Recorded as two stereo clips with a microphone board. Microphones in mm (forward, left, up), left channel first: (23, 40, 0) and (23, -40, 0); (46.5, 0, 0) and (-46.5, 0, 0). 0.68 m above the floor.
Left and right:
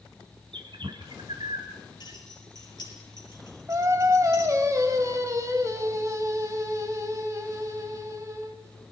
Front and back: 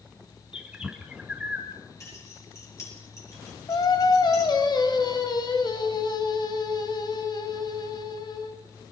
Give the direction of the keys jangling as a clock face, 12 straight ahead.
10 o'clock.